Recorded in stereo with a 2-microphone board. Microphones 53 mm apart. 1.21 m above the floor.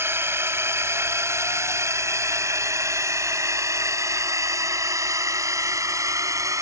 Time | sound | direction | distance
0.0 | a drone | 50° right (ahead or behind) | ?